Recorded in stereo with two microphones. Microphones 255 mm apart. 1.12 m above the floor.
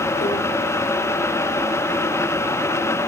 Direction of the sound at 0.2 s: 45° left (ahead or behind).